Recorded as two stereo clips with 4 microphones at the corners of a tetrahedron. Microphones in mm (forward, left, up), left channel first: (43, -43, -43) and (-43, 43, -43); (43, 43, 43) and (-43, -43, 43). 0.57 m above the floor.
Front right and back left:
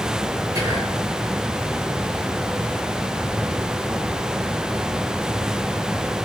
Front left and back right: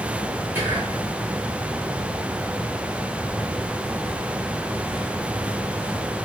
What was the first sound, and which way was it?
Whispering, 165° left.